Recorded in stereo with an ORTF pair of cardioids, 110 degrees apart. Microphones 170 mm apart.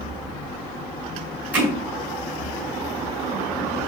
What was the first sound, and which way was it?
Hammering, 10° right.